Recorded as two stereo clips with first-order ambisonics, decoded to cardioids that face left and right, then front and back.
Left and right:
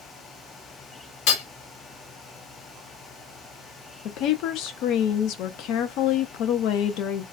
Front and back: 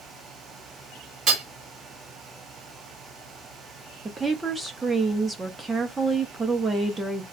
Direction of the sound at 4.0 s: 100° left.